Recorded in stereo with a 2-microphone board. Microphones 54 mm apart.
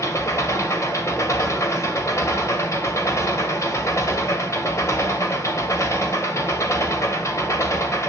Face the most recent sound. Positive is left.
turn(degrees=65)  # may be behind; listen again after turning